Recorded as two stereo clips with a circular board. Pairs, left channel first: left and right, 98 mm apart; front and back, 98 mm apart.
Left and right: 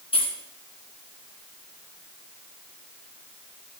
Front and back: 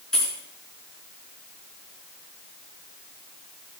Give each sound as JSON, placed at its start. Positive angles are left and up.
{"t": 0.1, "sound": "keys jangling", "azimuth_deg": 85, "distance_m": 2.5}